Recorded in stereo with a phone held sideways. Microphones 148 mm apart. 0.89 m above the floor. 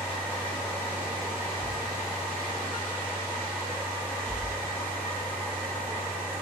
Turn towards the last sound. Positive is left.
turn(degrees=15)  # may be behind; listen again after turning